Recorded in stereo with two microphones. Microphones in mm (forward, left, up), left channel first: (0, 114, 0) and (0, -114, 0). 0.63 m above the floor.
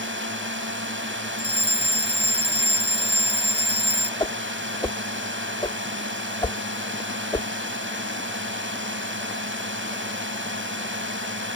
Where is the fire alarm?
25° left (ahead or behind).